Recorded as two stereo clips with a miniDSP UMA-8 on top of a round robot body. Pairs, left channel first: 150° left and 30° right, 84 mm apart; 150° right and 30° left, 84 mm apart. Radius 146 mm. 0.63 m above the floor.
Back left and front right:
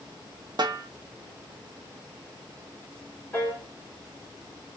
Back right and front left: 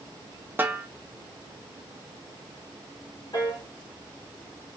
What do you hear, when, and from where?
0.6 s a snare drum: 30° right, 0.7 m
3.3 s a piano: 140° right, 1.7 m